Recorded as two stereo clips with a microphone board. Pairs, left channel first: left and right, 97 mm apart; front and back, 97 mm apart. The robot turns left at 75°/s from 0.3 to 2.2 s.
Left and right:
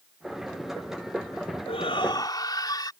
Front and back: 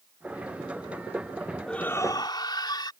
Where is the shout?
85° left; by 2.9 s 45° left.